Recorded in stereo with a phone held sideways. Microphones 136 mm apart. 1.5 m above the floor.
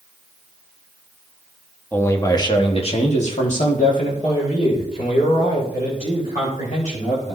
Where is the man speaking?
15° left (ahead or behind), 1.1 m; by 7.4 s 85° left, 4 m.